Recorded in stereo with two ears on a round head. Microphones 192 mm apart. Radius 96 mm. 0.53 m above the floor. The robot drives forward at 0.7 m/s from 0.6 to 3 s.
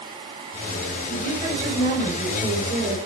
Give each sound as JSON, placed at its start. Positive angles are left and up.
{"t": 1.1, "sound": "a woman speaking", "side_deg": -40, "distance_m": 9.5}